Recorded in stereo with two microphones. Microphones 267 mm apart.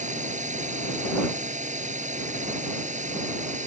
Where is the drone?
30° right (ahead or behind).